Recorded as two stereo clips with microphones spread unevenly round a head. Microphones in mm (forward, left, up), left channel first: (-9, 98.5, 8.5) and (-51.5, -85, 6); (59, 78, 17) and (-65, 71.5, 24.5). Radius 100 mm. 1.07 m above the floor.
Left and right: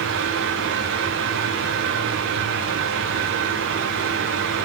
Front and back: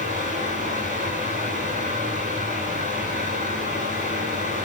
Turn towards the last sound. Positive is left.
turn(degrees=-125)